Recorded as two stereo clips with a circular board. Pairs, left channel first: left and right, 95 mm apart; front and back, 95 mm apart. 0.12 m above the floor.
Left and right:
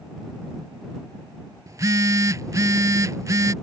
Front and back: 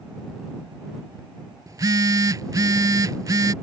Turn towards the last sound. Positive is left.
turn(degrees=-135)